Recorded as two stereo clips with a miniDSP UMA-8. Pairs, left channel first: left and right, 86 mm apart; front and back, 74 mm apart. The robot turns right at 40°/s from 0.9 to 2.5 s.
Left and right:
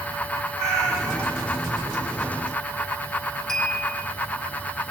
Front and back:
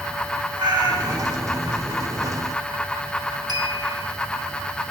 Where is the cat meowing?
Straight behind, 6.5 m; by 1.4 s 155° right, 6.5 m.